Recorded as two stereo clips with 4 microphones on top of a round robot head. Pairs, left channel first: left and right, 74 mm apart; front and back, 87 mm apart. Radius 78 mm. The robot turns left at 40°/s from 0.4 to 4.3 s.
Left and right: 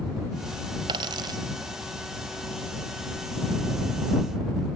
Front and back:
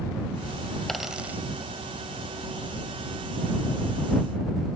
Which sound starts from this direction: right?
A dropped coin, at 0.9 s.